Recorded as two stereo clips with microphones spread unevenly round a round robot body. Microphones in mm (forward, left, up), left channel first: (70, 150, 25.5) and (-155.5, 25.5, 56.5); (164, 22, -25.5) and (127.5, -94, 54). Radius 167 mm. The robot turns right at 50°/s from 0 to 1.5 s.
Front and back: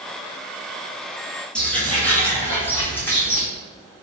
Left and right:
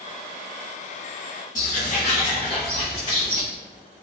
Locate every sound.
1.6 s footsteps: 125° left, 0.8 m; by 3.4 s 115° left, 1.8 m